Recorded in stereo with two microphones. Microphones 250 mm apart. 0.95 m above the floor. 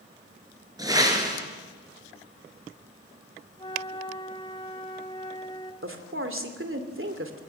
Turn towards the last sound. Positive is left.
turn(degrees=-60)  # may be behind; listen again after turning